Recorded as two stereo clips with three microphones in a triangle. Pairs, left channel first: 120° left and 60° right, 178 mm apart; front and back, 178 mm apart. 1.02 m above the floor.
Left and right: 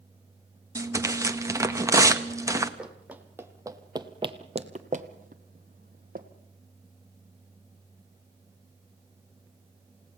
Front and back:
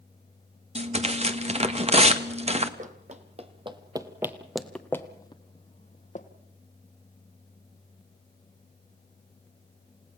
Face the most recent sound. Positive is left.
turn(degrees=-35)